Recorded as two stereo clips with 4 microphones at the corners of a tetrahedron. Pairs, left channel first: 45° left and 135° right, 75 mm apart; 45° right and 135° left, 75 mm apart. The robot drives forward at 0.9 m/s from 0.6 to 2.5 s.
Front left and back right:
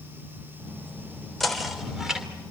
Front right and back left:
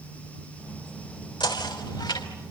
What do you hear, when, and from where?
1.4 s knocking: 40° right, 3.5 m; by 2.3 s 55° right, 3 m